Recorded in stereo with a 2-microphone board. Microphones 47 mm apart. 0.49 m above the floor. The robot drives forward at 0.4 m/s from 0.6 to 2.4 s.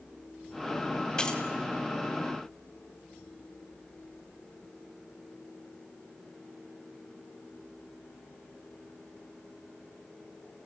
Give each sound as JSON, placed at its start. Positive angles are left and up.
{"t": 1.2, "sound": "keys jangling", "side_deg": 20, "distance_m": 1.6}